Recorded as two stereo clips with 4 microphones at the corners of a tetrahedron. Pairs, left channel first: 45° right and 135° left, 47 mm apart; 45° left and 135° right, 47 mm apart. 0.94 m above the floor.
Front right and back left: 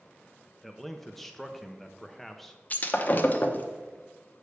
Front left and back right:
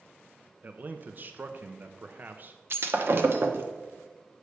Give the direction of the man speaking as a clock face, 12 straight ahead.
4 o'clock.